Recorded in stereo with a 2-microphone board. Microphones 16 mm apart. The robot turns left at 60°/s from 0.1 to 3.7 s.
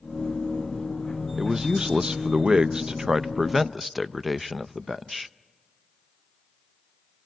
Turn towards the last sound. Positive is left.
turn(degrees=-175)